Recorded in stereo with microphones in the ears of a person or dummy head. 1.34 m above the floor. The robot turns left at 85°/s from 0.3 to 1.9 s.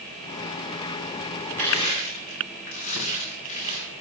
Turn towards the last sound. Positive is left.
turn(degrees=35)  # may be behind; listen again after turning